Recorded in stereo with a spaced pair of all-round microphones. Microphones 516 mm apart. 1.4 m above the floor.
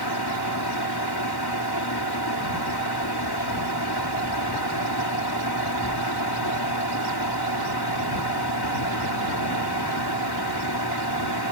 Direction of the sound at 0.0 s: 45° left (ahead or behind).